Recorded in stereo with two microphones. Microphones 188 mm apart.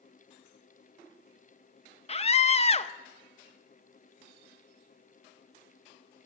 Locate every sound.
2.1 s a scream: 35° left (ahead or behind), 0.5 m